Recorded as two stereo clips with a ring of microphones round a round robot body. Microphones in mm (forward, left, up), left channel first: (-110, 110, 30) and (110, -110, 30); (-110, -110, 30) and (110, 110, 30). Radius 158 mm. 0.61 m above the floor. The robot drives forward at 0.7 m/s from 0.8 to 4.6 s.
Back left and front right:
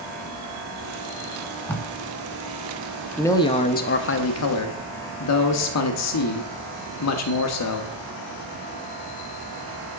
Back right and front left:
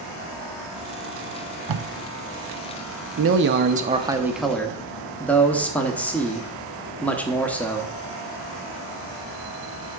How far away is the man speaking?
About 1.0 m.